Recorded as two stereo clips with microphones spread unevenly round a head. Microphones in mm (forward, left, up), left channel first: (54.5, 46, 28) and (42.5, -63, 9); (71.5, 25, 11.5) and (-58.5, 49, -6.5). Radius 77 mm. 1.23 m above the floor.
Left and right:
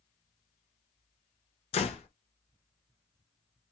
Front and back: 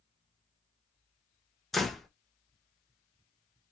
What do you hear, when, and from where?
1.7 s a door slam: 75° left, 0.6 m